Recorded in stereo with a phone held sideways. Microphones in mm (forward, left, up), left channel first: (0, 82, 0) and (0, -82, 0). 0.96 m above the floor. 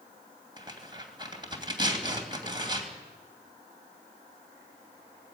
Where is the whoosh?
I don't hear a whoosh.